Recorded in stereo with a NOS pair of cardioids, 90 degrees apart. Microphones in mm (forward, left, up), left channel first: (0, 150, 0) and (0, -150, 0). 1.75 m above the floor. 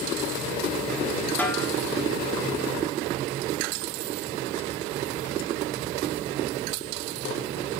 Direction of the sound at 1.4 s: 5° left.